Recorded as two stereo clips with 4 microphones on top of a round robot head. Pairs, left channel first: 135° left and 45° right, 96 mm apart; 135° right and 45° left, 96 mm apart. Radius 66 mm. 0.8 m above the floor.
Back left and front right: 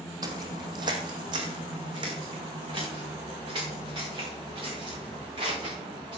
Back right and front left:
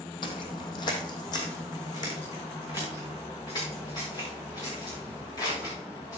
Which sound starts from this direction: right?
Footsteps, at 0.2 s.